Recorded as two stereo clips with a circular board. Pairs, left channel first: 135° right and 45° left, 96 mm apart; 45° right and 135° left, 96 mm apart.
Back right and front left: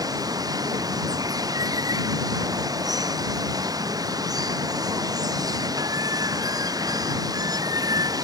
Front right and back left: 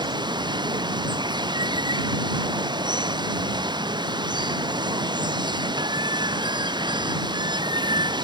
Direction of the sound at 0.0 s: 95° left.